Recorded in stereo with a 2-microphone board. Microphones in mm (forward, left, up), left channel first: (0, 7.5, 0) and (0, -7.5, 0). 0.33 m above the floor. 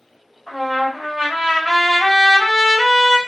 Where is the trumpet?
25° left (ahead or behind), 2 m.